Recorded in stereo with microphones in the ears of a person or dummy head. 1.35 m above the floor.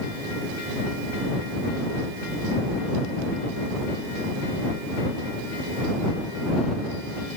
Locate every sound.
Only background noise.